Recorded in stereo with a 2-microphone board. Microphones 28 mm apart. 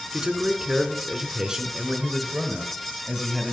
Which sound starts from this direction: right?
A man speaking, at 0.1 s.